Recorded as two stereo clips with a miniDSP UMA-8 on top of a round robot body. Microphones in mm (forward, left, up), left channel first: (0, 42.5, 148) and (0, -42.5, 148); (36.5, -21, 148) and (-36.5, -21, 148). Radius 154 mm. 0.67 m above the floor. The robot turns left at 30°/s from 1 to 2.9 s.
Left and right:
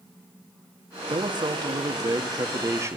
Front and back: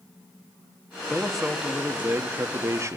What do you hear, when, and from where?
1.1 s a man speaking: 85° right, 1.8 m; by 3.0 s 140° right, 1.8 m